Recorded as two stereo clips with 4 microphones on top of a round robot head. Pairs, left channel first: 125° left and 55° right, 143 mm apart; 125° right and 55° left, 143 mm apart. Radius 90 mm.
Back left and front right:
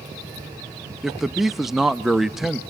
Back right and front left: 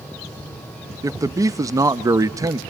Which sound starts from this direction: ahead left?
A man speaking, at 1.0 s.